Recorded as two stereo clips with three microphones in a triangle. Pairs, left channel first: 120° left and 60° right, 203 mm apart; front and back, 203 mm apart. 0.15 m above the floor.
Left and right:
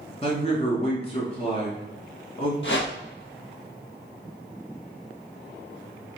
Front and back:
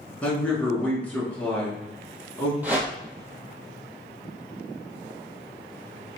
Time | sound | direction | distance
0.2 | a man speaking | 80° left | 1.3 m
2.6 | a whoosh | 100° left | 1.1 m